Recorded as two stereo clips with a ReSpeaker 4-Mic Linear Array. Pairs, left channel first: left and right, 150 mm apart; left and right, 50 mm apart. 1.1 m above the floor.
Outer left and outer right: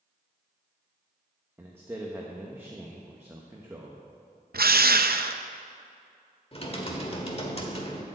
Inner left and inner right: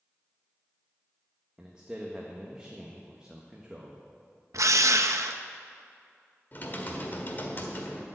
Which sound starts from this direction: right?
A drill, at 4.5 s.